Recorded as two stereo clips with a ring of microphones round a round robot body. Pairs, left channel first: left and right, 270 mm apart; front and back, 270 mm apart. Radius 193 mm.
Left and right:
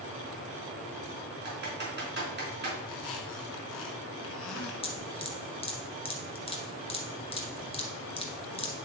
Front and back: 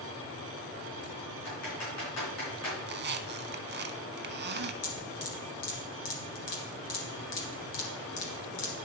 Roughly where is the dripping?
Ahead.